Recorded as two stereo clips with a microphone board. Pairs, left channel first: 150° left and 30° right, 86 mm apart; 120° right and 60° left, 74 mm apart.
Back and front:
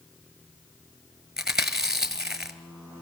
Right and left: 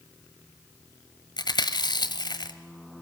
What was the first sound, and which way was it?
Chewing, 115° right.